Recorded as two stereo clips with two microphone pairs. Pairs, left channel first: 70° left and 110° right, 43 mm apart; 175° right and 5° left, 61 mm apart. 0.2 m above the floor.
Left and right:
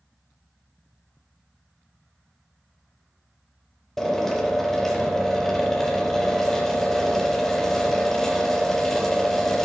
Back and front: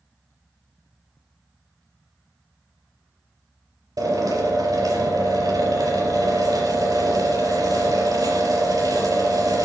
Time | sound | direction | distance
4.0 | a drill | 10° right | 4.5 m